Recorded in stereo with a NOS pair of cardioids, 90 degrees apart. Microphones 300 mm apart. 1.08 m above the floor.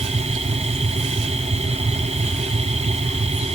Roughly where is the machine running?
Ahead.